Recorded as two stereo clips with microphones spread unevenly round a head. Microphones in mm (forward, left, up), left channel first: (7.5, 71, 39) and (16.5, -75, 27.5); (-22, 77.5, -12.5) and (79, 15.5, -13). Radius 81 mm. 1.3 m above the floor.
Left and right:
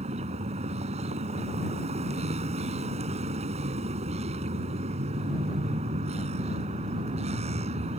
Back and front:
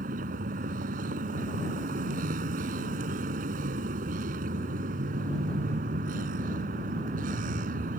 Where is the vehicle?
40° right.